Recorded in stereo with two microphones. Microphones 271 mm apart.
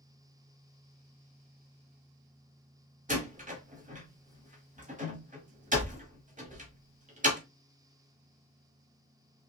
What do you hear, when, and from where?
3.1 s a door slam: 30° right (ahead or behind), 1.1 m